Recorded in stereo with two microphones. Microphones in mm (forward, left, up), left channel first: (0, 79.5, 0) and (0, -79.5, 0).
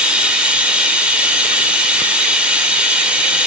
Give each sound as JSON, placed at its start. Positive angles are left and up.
{"t": 0.0, "sound": "running water", "side_deg": -5, "distance_m": 1.5}